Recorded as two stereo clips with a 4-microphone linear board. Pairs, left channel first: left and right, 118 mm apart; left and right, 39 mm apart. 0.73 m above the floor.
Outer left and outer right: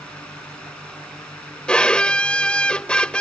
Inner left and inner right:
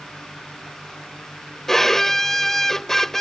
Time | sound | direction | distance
1.7 | a violin | 10° left (ahead or behind) | ?